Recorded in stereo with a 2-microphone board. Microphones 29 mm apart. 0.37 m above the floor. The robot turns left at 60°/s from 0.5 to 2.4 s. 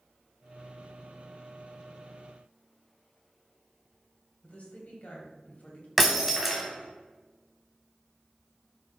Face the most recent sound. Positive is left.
turn(degrees=-10)  # may be behind; listen again after turning